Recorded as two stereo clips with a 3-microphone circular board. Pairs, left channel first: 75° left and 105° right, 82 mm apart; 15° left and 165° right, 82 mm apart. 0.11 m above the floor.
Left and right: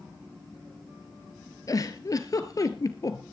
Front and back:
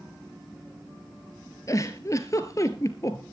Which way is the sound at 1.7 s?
50° left.